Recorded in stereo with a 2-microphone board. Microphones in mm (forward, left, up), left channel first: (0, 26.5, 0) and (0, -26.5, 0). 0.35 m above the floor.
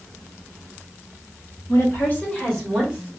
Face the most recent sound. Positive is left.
turn(degrees=-20)  # may be behind; listen again after turning